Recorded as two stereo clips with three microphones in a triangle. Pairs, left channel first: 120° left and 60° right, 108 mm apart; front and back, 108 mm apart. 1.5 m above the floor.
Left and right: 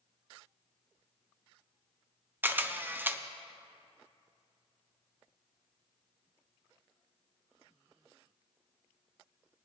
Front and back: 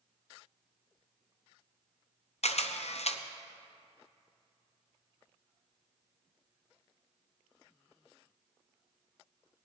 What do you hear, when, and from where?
2.4 s a camera shutter: 15° left, 0.6 m